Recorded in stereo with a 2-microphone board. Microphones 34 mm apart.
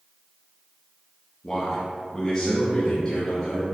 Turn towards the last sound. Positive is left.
turn(degrees=20)  # may be behind; listen again after turning